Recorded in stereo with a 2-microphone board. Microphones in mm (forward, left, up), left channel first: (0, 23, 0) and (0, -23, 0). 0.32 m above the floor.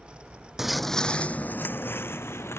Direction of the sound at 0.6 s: 10° right (ahead or behind).